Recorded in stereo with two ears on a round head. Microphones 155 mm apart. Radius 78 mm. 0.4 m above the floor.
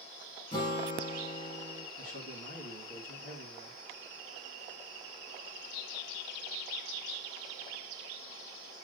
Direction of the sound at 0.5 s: 25° left (ahead or behind).